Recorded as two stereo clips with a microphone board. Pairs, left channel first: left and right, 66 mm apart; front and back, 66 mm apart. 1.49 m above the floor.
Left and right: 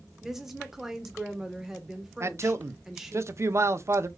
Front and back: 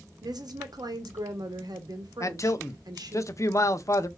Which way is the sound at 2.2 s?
45° right.